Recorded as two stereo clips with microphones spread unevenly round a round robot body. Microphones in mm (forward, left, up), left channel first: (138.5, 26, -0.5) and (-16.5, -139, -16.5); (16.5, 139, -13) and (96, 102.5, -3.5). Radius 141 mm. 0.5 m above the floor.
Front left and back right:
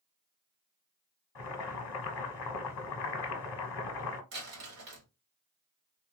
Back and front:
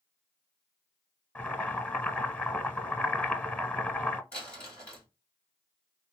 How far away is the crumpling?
About 1.6 m.